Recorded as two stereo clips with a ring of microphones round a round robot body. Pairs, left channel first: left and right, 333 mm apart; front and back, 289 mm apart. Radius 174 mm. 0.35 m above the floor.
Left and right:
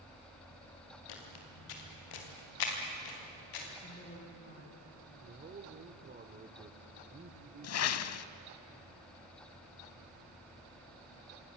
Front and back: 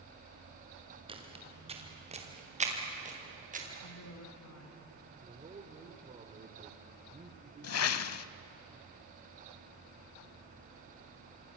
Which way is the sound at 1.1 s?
105° left.